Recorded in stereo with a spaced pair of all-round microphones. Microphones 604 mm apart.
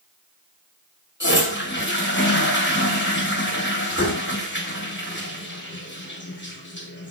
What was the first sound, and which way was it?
A toilet flushing, 20° left (ahead or behind).